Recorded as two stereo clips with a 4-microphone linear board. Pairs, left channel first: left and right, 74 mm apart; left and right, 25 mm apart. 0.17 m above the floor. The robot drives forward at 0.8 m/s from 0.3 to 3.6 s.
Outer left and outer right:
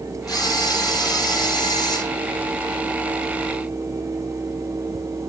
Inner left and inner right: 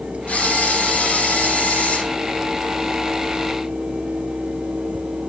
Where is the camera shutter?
60° left (ahead or behind), 4 m; by 2.0 s 75° left (ahead or behind), 4 m.